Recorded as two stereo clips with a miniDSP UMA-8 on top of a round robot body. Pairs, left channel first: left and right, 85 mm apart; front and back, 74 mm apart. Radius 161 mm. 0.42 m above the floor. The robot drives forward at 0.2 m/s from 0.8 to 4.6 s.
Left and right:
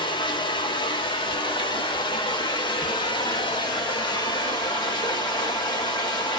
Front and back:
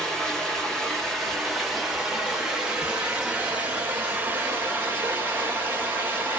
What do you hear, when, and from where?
0.0 s running water: 85° left, 1.4 m; by 6.4 s 115° left, 1.5 m